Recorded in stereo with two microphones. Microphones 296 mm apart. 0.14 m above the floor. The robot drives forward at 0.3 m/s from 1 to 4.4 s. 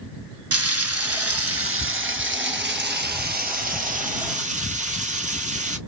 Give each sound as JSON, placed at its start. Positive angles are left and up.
{"t": 0.5, "sound": "frying", "side_deg": -55, "distance_m": 0.7}